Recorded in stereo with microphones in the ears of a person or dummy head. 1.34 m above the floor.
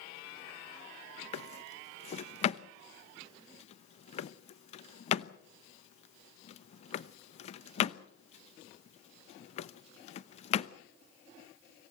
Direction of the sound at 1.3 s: 35° left (ahead or behind).